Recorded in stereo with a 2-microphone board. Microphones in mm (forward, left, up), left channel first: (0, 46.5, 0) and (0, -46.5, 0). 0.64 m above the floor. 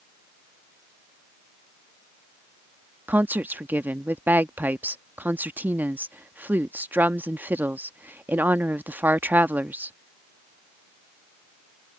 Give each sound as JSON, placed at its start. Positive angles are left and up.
{"t": 3.1, "sound": "a woman speaking", "side_deg": -20}